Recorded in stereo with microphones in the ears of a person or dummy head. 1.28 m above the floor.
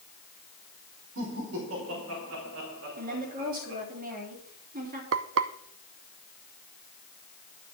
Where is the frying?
70° right (ahead or behind), 0.7 m.